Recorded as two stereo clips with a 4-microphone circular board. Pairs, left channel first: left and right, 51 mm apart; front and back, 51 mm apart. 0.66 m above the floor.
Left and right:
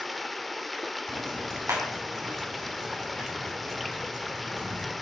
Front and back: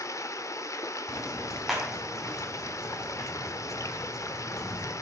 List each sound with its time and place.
0.0 s running water: straight ahead, 0.7 m
1.1 s ticking: 95° right, 4 m